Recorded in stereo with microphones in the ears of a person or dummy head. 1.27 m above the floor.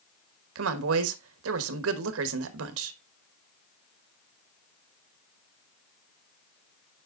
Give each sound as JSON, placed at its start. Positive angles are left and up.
{"t": 0.6, "sound": "a woman speaking", "side_deg": -80, "distance_m": 1.3}